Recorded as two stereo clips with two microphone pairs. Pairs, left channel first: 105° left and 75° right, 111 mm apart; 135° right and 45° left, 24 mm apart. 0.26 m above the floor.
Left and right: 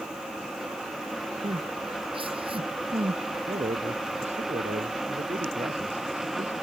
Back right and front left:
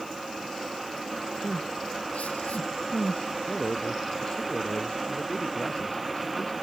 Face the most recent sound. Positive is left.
turn(degrees=-95)